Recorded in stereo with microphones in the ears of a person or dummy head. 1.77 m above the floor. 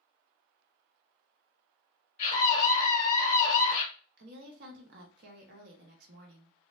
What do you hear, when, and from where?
2.2 s a scream: 45° left (ahead or behind), 1.6 m
4.2 s a woman speaking: 55° right (ahead or behind), 0.9 m